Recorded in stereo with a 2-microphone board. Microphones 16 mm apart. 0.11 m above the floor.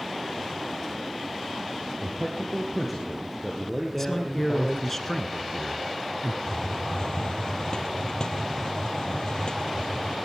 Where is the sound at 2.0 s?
Centre (ahead or behind), 2.5 m.